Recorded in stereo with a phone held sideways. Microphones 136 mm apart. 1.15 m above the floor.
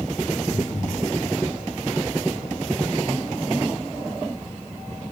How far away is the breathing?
About 4.5 m.